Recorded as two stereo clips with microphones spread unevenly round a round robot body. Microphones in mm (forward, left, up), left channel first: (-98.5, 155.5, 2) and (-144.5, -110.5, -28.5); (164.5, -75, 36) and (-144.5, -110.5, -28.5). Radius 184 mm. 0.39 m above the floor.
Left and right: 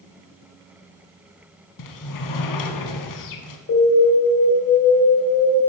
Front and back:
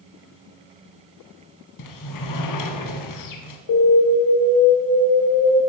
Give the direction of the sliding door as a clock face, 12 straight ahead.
10 o'clock.